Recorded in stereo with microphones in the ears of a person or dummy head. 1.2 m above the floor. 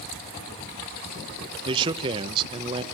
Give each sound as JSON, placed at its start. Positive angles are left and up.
{"t": 1.6, "sound": "a man speaking", "side_deg": -25, "distance_m": 0.9}